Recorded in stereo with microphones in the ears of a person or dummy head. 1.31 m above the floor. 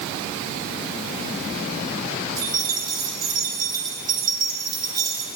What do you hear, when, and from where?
2.4 s keys jangling: 25° right (ahead or behind), 3 m